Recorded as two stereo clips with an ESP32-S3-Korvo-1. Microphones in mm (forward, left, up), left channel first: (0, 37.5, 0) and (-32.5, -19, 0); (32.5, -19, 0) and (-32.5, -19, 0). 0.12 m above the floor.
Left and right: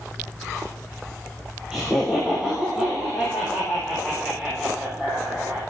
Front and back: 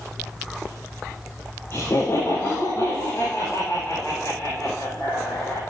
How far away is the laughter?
About 3 m.